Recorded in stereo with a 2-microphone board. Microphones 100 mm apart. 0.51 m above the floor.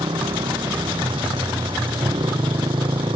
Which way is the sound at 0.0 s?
65° right (ahead or behind).